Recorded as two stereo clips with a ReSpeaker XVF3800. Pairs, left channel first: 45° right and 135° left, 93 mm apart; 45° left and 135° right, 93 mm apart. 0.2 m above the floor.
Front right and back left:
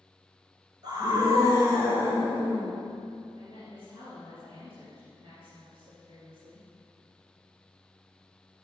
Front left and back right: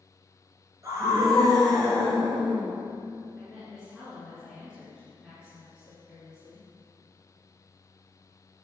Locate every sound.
0.8 s a scream: 175° left, 2.5 m; by 2.7 s 155° right, 3.5 m
3.4 s a woman speaking: 145° left, 2.5 m